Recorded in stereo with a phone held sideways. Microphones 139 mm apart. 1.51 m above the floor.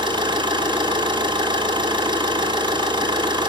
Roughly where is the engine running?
Right.